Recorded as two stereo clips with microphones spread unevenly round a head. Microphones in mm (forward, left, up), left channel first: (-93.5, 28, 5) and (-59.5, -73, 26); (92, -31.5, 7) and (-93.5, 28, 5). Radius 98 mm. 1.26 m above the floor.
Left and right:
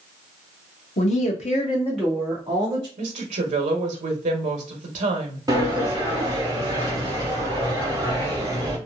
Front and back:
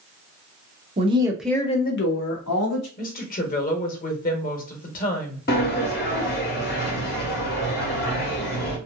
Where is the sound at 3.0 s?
65° right, 0.9 m.